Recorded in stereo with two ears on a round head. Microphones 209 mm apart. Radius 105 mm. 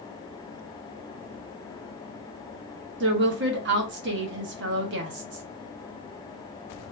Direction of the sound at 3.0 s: 50° right (ahead or behind).